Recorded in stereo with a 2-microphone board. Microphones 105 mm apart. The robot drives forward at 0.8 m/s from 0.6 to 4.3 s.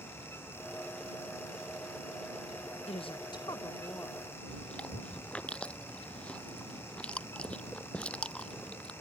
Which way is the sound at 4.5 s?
10° left (ahead or behind).